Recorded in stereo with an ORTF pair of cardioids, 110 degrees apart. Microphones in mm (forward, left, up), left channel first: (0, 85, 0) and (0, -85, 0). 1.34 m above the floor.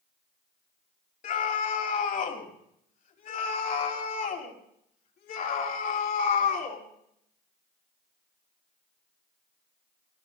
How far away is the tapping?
No tapping in this recording.